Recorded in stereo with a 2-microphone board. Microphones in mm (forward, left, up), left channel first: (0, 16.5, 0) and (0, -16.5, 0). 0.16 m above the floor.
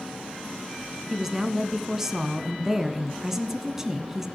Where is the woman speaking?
10° right (ahead or behind), 1.2 m.